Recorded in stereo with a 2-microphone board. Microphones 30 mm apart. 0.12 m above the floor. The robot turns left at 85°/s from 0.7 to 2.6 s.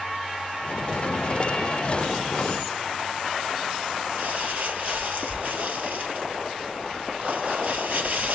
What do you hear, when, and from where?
4.2 s crumpling: 55° right (ahead or behind), 2 m